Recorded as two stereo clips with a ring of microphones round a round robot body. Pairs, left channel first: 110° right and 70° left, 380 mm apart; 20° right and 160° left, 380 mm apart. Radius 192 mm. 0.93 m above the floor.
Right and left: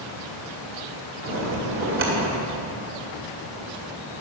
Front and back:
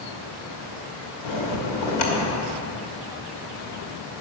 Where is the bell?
10° left, 2.5 m.